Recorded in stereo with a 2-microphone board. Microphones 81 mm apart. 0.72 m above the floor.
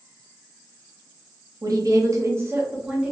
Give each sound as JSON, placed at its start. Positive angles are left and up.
{"t": 1.6, "sound": "a woman speaking", "side_deg": -50, "distance_m": 0.7}